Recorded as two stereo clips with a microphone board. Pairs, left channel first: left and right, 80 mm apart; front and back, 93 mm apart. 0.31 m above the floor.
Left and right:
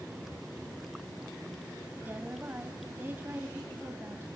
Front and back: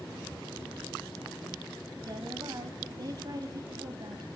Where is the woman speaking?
145° right, 1.9 m.